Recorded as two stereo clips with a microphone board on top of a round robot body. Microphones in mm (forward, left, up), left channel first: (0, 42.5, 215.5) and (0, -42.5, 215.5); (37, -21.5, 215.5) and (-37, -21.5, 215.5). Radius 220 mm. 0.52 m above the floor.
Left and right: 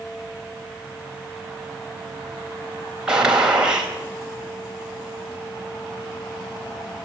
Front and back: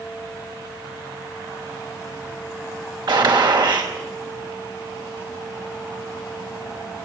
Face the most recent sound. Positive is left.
turn(degrees=-170)